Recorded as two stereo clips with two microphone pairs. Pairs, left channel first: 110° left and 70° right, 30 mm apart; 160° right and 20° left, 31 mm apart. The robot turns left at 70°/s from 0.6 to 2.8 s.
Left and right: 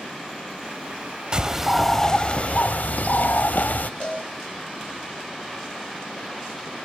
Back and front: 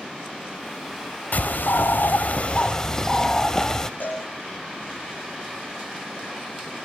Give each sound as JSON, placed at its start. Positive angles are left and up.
{"t": 1.3, "sound": "a bird", "azimuth_deg": -125, "distance_m": 1.2}
{"t": 4.0, "sound": "a cowbell", "azimuth_deg": 165, "distance_m": 9.5}